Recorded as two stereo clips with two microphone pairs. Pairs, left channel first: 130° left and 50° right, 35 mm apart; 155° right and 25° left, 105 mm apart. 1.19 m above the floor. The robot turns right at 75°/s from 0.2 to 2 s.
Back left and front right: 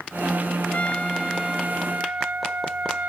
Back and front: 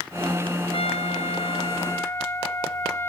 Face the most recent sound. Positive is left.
turn(degrees=-90)